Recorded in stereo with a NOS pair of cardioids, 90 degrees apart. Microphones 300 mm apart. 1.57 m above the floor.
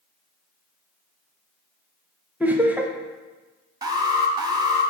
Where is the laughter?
5° right, 0.7 m.